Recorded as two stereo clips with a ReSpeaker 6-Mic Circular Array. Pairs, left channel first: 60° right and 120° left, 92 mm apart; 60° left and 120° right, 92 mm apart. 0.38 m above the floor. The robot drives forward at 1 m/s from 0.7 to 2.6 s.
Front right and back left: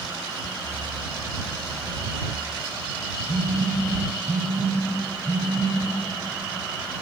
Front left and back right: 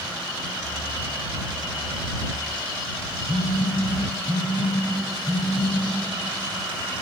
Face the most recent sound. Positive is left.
turn(degrees=-120)